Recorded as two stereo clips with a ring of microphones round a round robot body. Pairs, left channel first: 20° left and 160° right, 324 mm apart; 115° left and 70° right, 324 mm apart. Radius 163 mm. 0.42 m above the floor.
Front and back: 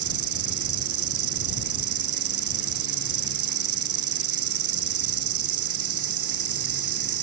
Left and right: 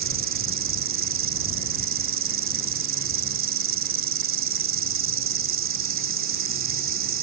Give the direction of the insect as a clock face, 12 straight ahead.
4 o'clock.